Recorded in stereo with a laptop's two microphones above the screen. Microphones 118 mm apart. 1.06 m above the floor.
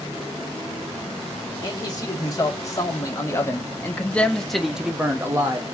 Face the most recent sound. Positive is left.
turn(degrees=-30)  # may be behind; listen again after turning